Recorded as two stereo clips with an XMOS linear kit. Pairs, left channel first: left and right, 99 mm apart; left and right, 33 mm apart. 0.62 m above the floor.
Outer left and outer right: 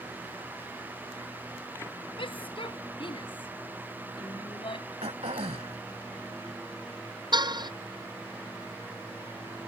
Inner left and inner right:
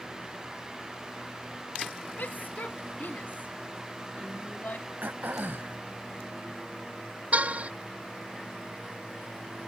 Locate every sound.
2.2 s a shout: 55° left (ahead or behind)
5.0 s throat clearing: 80° right
7.3 s a car horn: 45° right (ahead or behind)